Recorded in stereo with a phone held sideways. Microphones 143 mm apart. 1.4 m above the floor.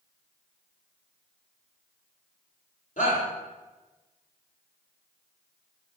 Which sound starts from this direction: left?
A shout, at 3.0 s.